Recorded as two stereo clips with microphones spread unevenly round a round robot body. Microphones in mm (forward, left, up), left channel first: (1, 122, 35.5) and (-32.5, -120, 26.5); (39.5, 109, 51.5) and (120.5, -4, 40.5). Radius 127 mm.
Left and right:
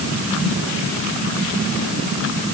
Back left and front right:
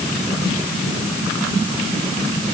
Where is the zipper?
No zipper in this recording.